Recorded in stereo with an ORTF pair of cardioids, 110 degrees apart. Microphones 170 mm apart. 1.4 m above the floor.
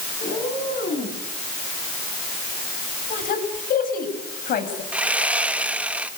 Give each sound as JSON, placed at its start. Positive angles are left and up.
{"t": 0.2, "sound": "a cat meowing", "azimuth_deg": 50, "distance_m": 9.0}
{"t": 3.1, "sound": "a woman speaking", "azimuth_deg": 55, "distance_m": 7.5}
{"t": 4.9, "sound": "sawing", "azimuth_deg": -5, "distance_m": 1.5}